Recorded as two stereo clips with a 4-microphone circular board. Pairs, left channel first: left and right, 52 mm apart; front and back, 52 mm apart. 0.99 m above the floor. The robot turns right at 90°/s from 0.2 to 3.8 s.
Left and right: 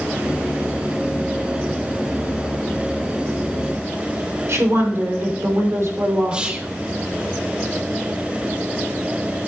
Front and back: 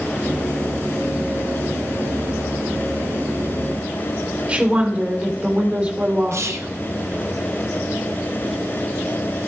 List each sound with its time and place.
4.5 s a woman speaking: 115° right, 3 m
6.3 s whispering: 160° right, 1.1 m